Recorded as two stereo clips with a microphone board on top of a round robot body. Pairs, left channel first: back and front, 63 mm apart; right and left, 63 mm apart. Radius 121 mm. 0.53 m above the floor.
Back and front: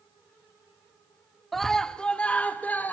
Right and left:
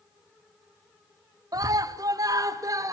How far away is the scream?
About 1.4 m.